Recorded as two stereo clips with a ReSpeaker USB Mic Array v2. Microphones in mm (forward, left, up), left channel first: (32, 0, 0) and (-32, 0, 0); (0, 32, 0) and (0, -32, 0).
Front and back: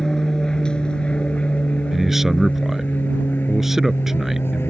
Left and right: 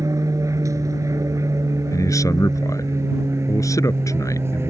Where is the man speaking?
95° left.